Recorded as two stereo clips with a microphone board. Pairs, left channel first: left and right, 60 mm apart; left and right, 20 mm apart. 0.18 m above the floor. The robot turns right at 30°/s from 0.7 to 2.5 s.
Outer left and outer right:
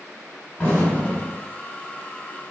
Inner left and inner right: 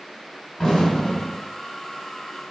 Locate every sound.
0.6 s an explosion: 20° left (ahead or behind), 1.5 m